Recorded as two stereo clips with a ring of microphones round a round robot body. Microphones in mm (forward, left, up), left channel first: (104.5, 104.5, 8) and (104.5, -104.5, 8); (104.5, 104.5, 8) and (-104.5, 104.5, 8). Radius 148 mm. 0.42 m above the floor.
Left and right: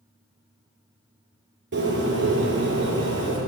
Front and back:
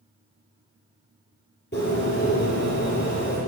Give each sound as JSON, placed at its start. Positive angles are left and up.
{"t": 1.7, "sound": "a bird", "azimuth_deg": -60, "distance_m": 5.0}